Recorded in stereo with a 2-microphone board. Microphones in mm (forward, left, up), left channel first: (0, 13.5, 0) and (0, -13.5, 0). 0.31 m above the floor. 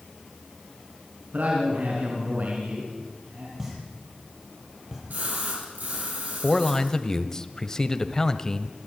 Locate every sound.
1.3 s a man speaking: 70° right (ahead or behind), 4.5 m
3.6 s a pop: 15° right (ahead or behind), 6.5 m
5.1 s a splash: 80° right, 7 m
6.4 s a man speaking: 20° left (ahead or behind), 1.2 m